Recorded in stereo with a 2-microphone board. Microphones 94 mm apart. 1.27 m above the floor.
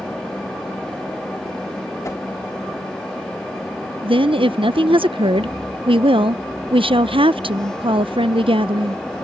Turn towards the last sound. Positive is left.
turn(degrees=-70)  # may be behind; listen again after turning